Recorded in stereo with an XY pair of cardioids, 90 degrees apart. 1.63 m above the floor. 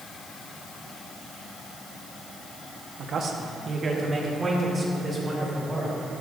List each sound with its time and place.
3.0 s a man speaking: 70° right, 1.1 m; by 5.9 s 20° right, 4 m